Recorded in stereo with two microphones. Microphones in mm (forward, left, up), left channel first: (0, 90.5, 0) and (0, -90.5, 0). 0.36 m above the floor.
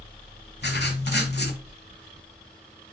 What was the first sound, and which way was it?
Writing, 70° left (ahead or behind).